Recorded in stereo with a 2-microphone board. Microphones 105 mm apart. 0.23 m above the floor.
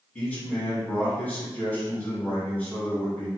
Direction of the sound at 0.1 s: 15° left (ahead or behind).